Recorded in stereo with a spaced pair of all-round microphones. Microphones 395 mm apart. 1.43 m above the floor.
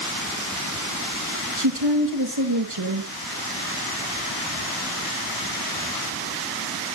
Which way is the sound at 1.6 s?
75° right (ahead or behind).